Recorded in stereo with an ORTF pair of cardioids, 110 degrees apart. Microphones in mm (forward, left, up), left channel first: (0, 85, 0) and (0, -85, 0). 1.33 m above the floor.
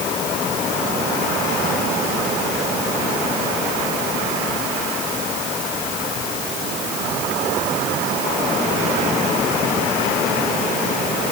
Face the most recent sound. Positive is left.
No sound to turn to.